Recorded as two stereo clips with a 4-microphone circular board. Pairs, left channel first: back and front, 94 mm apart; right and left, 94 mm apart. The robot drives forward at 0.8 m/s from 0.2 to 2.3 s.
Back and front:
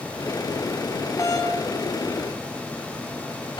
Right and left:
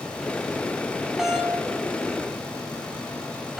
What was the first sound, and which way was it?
A doorbell, 170° left.